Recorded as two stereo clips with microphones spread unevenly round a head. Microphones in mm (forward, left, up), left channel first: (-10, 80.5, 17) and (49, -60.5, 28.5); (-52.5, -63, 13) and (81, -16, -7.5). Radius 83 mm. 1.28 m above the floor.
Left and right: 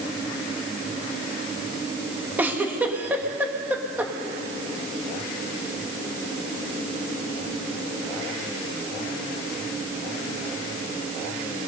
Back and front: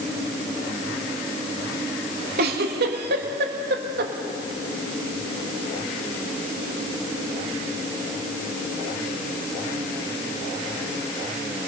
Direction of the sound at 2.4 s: 15° left.